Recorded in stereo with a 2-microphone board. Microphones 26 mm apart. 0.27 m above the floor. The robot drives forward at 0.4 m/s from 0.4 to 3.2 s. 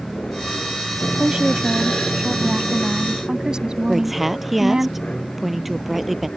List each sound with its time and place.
0.0 s an aircraft: 45° left (ahead or behind); by 6.4 s 50° left (ahead or behind)
1.2 s a woman speaking: 40° right (ahead or behind); by 4.9 s 30° right (ahead or behind)
3.9 s a woman speaking: 10° right (ahead or behind)